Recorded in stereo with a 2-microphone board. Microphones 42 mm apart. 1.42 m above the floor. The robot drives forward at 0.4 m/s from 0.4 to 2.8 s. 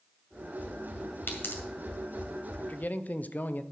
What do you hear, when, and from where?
1.3 s a pop: 60° left (ahead or behind), 2 m
2.6 s a man speaking: 40° left (ahead or behind), 0.7 m; by 3.6 s 45° left (ahead or behind), 0.6 m